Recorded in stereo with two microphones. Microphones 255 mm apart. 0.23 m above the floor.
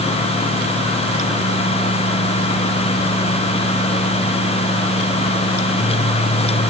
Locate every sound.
Only background noise.